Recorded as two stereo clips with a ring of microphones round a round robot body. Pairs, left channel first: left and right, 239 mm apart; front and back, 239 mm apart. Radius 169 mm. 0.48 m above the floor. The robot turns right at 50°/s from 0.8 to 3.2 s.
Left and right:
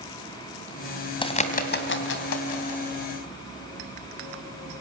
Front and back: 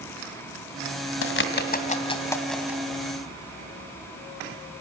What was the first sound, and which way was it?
A bird, 20° left.